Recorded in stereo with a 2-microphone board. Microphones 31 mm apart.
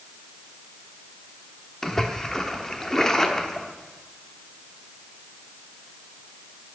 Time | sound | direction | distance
1.8 | a splash | 15° left (ahead or behind) | 1.1 m